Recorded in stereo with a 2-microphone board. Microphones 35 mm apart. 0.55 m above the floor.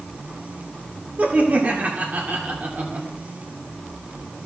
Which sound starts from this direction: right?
Laughter, at 1.2 s.